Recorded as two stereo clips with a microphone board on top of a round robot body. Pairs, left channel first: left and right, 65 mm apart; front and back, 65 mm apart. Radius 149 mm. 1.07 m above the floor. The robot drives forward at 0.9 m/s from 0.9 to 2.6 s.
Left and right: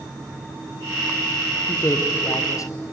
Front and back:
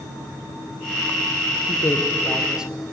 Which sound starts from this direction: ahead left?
A man speaking, at 1.7 s.